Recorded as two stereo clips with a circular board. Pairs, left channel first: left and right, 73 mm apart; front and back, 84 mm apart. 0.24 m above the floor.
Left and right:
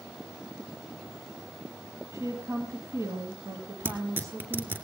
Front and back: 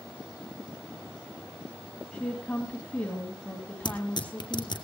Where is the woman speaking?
65° right, 2.5 m.